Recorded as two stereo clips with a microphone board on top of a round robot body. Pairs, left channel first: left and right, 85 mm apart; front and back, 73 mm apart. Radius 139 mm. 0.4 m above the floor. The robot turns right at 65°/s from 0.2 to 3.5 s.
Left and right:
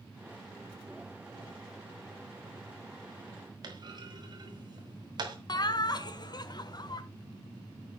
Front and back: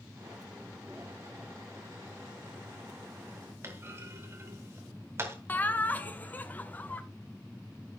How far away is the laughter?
About 1.5 m.